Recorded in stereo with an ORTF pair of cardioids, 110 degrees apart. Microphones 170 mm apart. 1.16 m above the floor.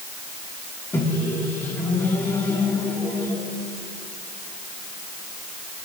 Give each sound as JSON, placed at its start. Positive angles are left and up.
{"t": 0.9, "sound": "a microwave", "azimuth_deg": 15, "distance_m": 2.5}